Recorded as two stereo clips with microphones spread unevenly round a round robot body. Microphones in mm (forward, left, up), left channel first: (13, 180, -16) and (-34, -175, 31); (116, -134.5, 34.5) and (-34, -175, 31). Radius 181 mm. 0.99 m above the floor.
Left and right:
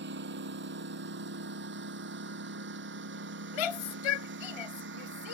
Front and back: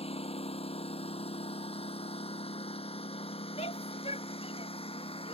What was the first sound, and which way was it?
A lawn mower, 35° right.